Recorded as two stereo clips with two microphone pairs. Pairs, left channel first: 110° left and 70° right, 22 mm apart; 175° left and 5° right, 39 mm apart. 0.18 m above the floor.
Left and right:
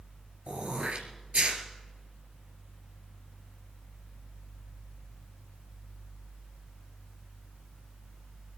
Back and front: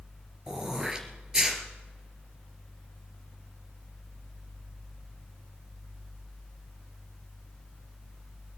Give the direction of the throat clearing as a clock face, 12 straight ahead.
3 o'clock.